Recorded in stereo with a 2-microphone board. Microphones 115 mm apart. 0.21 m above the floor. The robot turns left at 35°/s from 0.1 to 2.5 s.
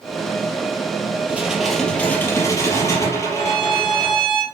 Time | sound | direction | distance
1.3 | dishes clattering | 165° right | 3.5 m
3.3 | a violin | 5° left (ahead or behind) | 6 m